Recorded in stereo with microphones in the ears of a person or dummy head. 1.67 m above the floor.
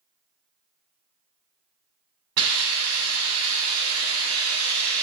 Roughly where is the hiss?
Right.